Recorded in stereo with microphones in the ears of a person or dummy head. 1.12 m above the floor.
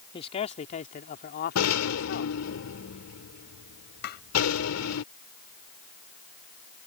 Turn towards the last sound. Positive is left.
turn(degrees=55)  # may be behind; listen again after turning